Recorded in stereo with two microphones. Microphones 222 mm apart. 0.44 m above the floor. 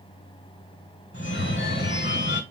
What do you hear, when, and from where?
1.1 s a phone ringing: 55° left (ahead or behind), 1.1 m